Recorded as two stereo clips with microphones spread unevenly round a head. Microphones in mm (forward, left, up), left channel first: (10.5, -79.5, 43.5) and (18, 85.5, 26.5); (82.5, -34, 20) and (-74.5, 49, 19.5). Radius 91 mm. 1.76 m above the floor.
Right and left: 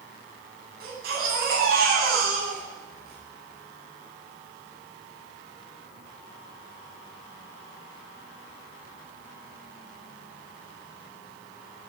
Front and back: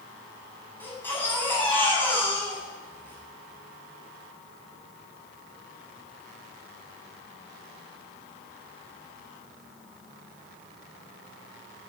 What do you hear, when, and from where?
0.8 s a baby crying: 50° left, 10 m